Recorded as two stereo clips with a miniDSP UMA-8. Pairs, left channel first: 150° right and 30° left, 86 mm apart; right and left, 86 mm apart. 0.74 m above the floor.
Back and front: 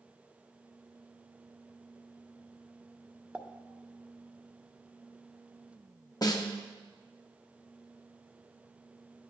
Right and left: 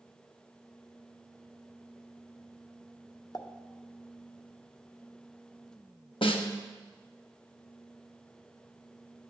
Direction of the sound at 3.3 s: 45° right.